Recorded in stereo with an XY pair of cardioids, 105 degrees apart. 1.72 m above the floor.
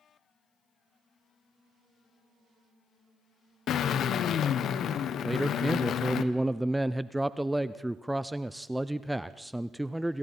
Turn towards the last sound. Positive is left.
turn(degrees=-5)